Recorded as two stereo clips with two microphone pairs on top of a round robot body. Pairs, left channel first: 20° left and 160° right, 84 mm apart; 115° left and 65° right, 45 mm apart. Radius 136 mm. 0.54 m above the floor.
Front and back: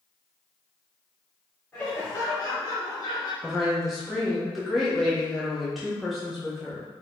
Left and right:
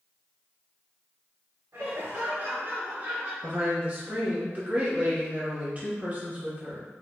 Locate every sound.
1.7 s laughter: 50° right, 1.8 m; by 3.3 s 5° right, 1.6 m
3.4 s a woman speaking: 45° right, 1.4 m